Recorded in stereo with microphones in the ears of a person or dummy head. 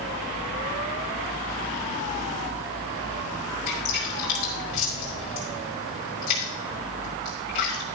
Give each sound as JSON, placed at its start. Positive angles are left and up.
{"t": 3.7, "sound": "dripping", "side_deg": 45, "distance_m": 2.0}